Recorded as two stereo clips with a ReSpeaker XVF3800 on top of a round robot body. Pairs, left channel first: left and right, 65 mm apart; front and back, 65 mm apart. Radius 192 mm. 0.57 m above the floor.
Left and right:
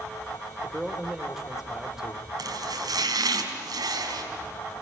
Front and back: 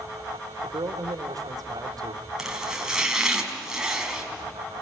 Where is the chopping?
100° right, 4 m.